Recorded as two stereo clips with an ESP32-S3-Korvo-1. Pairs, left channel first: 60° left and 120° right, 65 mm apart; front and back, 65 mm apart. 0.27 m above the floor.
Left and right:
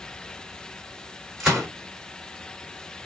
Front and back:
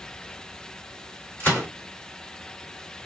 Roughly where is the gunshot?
Ahead right.